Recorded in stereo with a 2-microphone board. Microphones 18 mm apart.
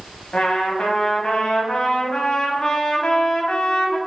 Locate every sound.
0.3 s a trumpet: 70° left (ahead or behind), 0.6 m